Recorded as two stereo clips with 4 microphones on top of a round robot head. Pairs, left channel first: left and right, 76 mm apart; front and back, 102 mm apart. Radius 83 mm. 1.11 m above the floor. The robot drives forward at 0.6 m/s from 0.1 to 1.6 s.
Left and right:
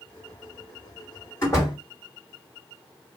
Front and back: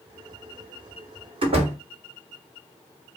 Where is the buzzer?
No buzzer in this recording.